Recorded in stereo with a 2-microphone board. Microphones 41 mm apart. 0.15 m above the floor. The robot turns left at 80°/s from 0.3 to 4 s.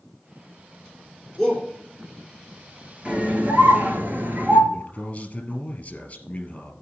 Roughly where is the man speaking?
Left.